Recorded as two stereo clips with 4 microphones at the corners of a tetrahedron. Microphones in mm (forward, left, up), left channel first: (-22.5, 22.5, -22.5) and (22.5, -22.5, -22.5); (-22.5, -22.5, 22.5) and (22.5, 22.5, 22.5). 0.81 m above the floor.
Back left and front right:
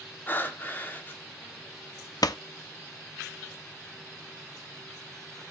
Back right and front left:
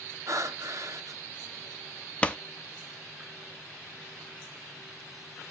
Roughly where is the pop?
Behind left.